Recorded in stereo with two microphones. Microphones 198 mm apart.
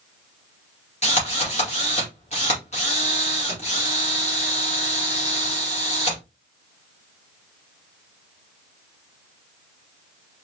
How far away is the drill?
About 2.5 m.